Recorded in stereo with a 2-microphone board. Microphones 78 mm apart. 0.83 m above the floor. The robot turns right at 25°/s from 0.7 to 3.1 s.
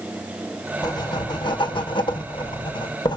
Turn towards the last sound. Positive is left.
turn(degrees=110)